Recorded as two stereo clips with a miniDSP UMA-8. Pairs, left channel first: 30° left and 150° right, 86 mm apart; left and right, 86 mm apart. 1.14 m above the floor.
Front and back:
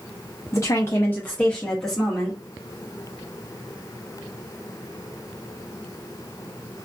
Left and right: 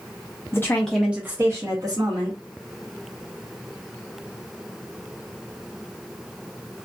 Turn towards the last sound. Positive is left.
turn(degrees=-60)